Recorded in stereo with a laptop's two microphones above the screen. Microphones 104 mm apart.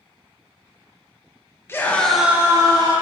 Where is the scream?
25° left (ahead or behind), 1.0 m; by 2.9 s 40° right (ahead or behind), 1.1 m.